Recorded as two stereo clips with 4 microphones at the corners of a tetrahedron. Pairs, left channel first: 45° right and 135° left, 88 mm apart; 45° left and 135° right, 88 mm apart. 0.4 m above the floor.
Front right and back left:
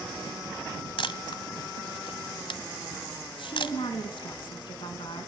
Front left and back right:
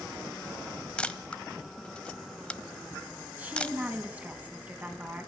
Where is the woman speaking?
60° right, 3.5 m.